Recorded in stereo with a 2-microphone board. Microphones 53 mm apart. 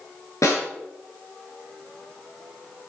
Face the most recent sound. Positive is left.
turn(degrees=80)